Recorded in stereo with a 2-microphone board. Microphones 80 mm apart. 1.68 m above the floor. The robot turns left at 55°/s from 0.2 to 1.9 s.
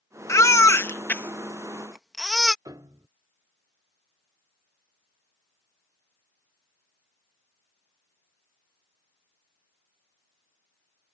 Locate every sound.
0.3 s a baby crying: 35° left (ahead or behind); by 2.5 s centre (ahead or behind)
2.6 s a piano: 45° right (ahead or behind)